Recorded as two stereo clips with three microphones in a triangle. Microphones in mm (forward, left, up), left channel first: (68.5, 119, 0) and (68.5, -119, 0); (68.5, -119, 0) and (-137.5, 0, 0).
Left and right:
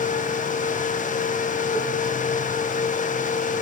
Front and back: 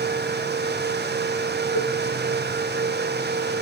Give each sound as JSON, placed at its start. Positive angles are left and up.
{"t": 1.8, "sound": "a cowbell", "azimuth_deg": -10, "distance_m": 5.5}